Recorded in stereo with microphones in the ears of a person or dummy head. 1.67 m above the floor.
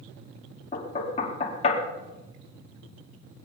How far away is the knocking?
About 3 m.